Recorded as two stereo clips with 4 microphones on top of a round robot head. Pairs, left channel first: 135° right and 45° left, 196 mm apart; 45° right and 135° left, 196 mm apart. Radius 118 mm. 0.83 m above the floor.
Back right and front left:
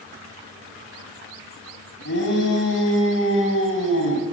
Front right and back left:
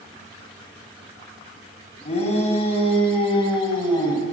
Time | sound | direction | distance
2.0 | a shout | 105° right | 8 m